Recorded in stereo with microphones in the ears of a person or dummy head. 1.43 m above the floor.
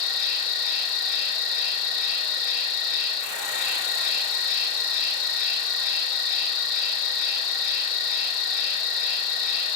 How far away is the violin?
I don't hear a violin.